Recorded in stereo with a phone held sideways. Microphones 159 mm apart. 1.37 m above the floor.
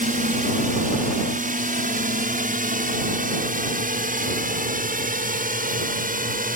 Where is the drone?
60° right (ahead or behind); by 6.6 s 65° right (ahead or behind).